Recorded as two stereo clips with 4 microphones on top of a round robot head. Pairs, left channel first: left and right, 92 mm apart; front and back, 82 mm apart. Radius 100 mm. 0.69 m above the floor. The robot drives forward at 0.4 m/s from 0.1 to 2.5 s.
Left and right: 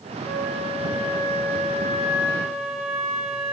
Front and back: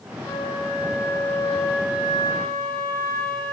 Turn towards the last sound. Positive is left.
turn(degrees=55)